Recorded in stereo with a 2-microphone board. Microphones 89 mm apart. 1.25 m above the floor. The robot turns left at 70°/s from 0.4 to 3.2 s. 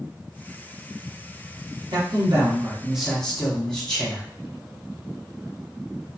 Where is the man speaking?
100° right, 1.1 m; by 4.3 s 170° left, 1.1 m.